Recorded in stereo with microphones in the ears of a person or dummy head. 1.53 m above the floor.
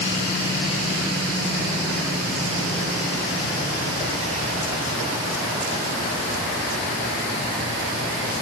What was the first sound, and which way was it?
Only background noise.